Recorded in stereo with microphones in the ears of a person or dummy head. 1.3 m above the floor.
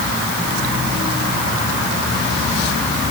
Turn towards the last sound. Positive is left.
No sound to turn to.